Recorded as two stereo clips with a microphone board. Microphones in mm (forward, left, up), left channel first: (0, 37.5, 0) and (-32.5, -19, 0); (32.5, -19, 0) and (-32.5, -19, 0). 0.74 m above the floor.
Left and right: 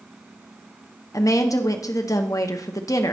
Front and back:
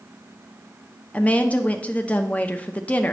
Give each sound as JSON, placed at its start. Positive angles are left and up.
{"t": 1.1, "sound": "a woman speaking", "azimuth_deg": 65, "distance_m": 0.7}